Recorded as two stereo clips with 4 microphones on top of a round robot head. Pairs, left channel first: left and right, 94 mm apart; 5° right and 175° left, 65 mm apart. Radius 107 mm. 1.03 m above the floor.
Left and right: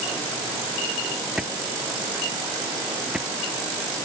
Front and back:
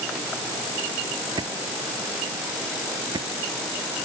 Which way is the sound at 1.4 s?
175° right.